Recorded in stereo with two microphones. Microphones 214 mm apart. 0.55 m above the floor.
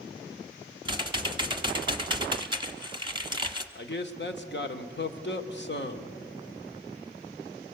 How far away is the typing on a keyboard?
About 1.3 m.